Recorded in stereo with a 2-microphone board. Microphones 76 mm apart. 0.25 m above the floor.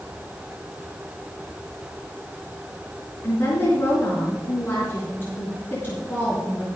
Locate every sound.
3.2 s a woman speaking: 30° left (ahead or behind), 4 m